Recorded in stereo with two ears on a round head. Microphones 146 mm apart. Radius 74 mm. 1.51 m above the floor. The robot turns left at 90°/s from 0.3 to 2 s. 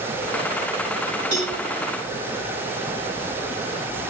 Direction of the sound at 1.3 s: 85° right.